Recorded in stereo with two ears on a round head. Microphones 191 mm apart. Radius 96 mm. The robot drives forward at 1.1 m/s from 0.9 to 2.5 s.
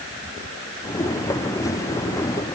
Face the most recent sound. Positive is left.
No sound to turn to.